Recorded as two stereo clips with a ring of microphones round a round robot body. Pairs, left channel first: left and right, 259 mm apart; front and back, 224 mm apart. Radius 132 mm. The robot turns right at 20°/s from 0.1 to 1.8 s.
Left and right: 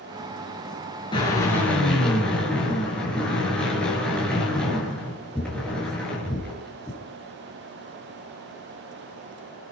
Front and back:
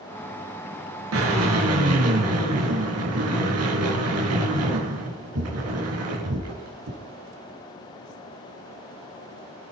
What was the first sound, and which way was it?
A drill, 165° left.